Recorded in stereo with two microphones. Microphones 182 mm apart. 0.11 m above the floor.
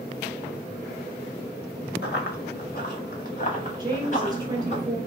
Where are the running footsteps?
65° left (ahead or behind), 1.5 m; by 4.8 s 40° left (ahead or behind), 2.5 m.